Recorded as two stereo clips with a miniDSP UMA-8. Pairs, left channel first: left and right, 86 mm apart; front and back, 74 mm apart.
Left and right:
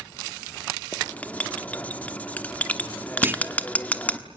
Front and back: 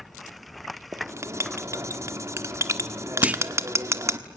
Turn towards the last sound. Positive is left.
turn(degrees=-125)